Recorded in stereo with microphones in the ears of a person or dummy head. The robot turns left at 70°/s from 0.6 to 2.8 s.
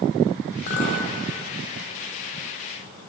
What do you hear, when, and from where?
0.7 s a clink: 60° left (ahead or behind), 2 m; by 1.1 s 35° left (ahead or behind), 2 m